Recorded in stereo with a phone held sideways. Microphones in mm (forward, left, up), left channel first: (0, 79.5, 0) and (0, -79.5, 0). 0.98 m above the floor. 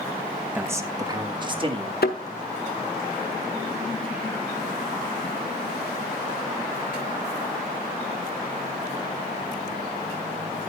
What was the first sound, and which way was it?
A man speaking, 10° right (ahead or behind).